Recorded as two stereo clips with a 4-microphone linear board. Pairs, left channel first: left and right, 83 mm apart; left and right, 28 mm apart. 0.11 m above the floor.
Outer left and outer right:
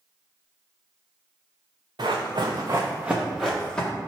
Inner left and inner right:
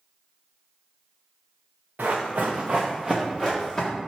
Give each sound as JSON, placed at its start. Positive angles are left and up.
{"t": 2.0, "sound": "running footsteps", "side_deg": -85, "distance_m": 0.7}